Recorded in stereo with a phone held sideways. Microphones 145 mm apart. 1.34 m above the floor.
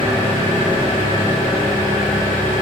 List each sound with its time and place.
0.0 s an engine running: 85° left, 0.9 m